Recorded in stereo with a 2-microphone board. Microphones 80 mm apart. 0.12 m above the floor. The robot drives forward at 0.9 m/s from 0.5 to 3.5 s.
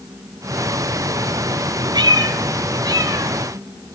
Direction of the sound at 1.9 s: 65° right (ahead or behind).